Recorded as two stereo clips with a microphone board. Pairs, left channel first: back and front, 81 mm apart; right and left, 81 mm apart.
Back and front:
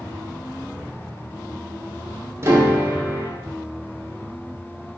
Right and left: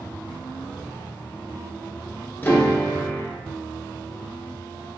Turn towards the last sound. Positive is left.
turn(degrees=-30)